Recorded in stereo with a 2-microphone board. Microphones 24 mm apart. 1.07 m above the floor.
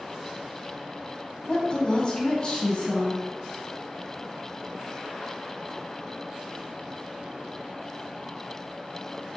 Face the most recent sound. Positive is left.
turn(degrees=30)  # may be behind; listen again after turning